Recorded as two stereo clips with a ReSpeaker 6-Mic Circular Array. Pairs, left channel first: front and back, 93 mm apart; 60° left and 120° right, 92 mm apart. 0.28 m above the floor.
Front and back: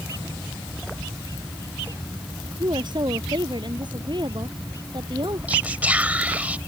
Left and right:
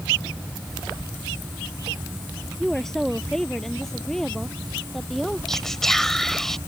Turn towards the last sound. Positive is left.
turn(degrees=140)